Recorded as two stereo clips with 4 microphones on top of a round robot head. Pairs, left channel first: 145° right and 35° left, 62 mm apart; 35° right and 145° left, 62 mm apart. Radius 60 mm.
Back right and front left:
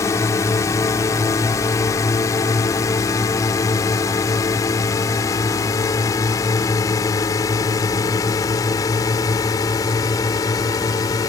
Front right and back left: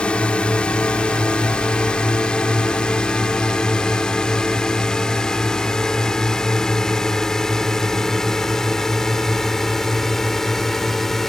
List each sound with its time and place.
0.0 s a drone: 105° right; by 11.3 s 120° right